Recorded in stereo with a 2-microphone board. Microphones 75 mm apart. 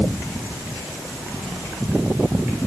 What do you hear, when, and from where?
Only background noise.